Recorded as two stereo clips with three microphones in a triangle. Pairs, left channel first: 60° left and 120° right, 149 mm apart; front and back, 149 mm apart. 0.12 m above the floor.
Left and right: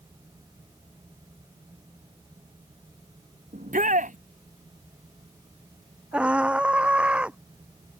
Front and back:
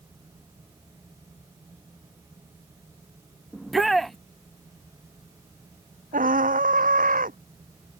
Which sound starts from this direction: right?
A shout, at 3.5 s.